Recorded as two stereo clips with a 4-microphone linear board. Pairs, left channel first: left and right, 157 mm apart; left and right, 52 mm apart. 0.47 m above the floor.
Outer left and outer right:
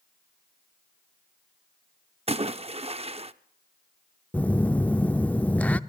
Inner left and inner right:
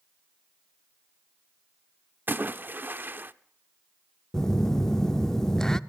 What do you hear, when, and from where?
2.3 s a splash: 40° right (ahead or behind), 0.5 m
4.3 s a phone buzzing: 10° left (ahead or behind), 0.5 m